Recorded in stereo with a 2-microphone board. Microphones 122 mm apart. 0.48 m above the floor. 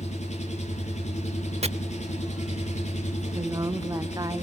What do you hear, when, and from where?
0.0 s an engine running: 70° left (ahead or behind), 6 m
1.6 s chopping: 60° right (ahead or behind), 0.8 m
3.3 s a woman speaking: 30° right (ahead or behind), 0.8 m